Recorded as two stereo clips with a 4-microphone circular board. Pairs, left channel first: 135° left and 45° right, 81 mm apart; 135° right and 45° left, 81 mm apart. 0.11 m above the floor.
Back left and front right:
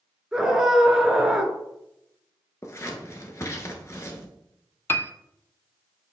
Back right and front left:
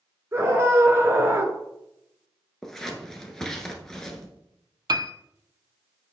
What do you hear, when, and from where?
0.3 s a scream: 35° left, 1.3 m
2.6 s scissors: 145° left, 1.2 m
4.9 s a piano: 75° left, 0.5 m